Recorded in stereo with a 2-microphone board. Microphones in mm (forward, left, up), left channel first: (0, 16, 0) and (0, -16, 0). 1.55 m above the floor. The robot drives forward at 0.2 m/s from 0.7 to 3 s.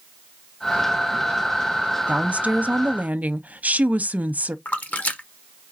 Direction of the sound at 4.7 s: 50° left (ahead or behind).